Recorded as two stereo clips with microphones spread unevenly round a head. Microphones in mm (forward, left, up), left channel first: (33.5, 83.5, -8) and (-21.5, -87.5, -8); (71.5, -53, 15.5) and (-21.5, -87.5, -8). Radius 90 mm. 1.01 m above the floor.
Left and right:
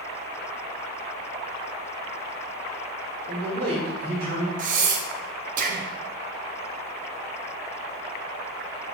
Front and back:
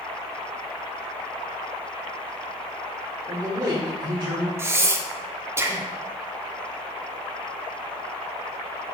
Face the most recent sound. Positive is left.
turn(degrees=-90)